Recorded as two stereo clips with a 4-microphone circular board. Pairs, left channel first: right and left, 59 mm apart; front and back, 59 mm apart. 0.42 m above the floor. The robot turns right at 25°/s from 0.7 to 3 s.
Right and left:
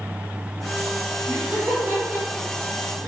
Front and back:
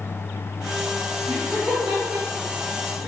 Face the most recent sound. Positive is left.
turn(degrees=170)